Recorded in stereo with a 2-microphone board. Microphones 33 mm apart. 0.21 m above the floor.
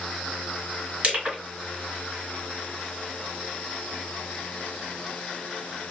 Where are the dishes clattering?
I don't hear dishes clattering.